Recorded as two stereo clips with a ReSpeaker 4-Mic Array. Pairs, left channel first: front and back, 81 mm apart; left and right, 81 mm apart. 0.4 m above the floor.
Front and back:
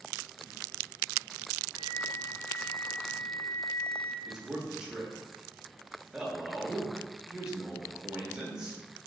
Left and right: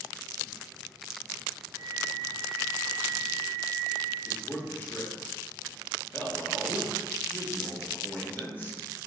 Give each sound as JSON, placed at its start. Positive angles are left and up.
{"t": 1.7, "sound": "a flute", "azimuth_deg": 85, "distance_m": 1.6}
{"t": 4.2, "sound": "a man speaking", "azimuth_deg": 110, "distance_m": 0.8}